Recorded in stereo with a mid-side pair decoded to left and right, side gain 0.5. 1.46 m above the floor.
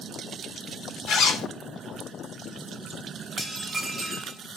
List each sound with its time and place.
1.1 s a zipper: 65° left, 0.9 m
3.4 s dishes clattering: 10° right, 1.3 m